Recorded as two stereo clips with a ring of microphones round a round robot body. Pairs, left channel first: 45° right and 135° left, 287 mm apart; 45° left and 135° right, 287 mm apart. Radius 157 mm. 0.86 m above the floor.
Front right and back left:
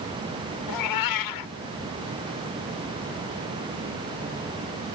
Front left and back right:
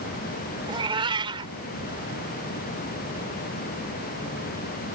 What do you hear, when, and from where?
0.7 s a cat meowing: 60° right